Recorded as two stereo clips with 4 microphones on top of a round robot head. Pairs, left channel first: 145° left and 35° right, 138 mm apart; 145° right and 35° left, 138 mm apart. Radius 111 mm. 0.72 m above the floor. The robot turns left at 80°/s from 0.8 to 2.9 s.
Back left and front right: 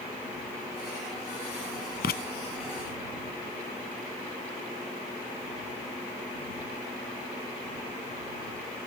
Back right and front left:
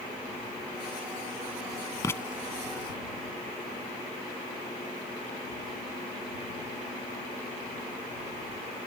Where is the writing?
150° left; by 2.2 s 135° left.